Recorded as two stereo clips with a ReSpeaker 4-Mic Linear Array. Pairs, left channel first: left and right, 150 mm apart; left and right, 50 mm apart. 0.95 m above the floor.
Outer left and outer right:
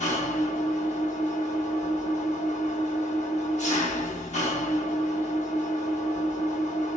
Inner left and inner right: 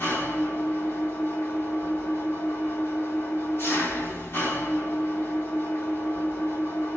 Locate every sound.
0.0 s an engine running: 50° left (ahead or behind), 1.4 m